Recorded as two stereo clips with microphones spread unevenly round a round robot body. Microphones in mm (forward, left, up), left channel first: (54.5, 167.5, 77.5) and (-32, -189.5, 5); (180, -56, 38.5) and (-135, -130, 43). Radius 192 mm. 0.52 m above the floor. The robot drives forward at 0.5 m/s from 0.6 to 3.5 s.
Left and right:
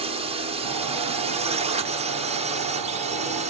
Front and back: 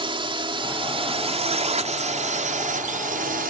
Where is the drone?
110° right; by 3.5 s 130° right.